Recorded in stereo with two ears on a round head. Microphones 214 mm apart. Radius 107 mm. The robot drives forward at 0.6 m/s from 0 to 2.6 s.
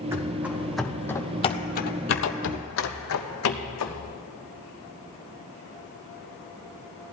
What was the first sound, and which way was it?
Running footsteps, 10° right (ahead or behind).